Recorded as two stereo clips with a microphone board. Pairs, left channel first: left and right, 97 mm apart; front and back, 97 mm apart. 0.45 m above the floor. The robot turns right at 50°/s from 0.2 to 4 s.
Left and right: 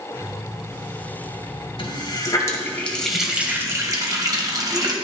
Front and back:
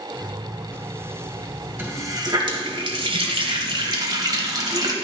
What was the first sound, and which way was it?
A running tap, 110° left.